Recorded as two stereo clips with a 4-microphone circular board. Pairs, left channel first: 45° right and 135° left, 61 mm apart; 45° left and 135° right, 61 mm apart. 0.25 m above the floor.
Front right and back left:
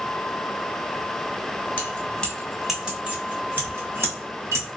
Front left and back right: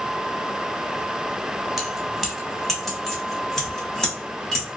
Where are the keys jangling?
55° right, 1.0 m; by 4.7 s 125° left, 1.6 m.